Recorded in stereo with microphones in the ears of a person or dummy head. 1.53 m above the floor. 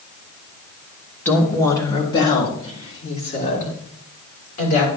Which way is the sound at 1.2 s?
15° left (ahead or behind).